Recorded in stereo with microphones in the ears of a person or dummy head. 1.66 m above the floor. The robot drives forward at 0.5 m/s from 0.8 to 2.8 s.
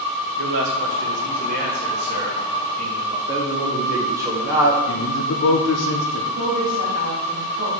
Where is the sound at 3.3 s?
15° right (ahead or behind), 1.4 m.